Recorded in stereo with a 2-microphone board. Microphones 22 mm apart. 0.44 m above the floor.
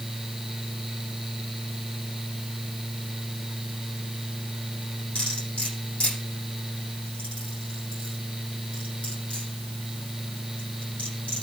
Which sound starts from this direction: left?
Cutlery clinking, at 5.2 s.